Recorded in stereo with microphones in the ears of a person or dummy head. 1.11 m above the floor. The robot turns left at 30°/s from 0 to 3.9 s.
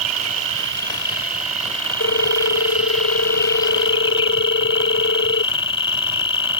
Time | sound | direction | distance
0.0 | an insect | 95° right | ?
2.0 | a ringtone | 115° left | ?